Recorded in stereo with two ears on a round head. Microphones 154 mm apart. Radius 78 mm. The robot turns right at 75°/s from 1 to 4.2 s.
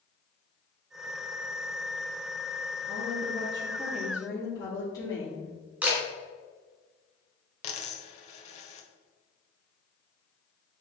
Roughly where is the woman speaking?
Right.